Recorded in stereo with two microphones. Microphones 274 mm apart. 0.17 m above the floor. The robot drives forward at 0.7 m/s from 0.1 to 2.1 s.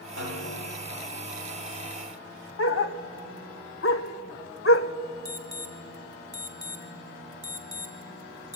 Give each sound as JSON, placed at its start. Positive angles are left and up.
{"t": 0.2, "sound": "a snare drum", "side_deg": -60, "distance_m": 8.5}
{"t": 2.6, "sound": "a dog barking", "side_deg": 55, "distance_m": 0.6}
{"t": 5.2, "sound": "an alarm", "side_deg": 35, "distance_m": 1.8}